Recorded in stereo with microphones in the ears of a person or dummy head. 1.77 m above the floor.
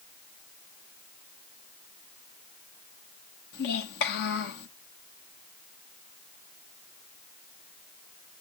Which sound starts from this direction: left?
A child speaking, at 3.5 s.